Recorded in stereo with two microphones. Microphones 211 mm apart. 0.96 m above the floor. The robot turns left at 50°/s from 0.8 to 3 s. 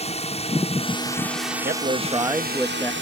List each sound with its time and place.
0.0 s a drone: 30° left (ahead or behind); by 3.0 s 65° right (ahead or behind)
1.6 s a man speaking: 130° right; by 2.9 s 165° left